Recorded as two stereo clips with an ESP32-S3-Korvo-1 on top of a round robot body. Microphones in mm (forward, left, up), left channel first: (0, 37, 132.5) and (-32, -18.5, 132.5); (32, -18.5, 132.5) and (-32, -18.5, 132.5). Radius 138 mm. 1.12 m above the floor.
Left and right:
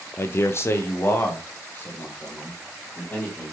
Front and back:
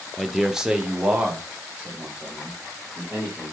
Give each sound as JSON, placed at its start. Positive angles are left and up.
{"t": 0.2, "sound": "a man speaking", "azimuth_deg": 85, "distance_m": 0.6}